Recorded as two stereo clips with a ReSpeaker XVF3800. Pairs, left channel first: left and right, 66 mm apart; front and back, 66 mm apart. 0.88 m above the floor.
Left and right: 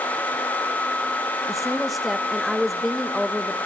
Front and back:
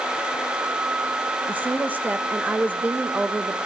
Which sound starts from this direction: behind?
A woman speaking, at 1.5 s.